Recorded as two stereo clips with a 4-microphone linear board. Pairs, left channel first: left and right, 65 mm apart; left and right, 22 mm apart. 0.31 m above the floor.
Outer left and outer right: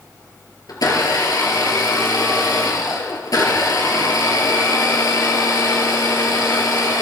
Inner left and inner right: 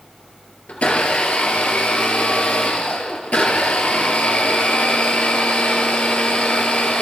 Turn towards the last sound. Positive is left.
turn(degrees=80)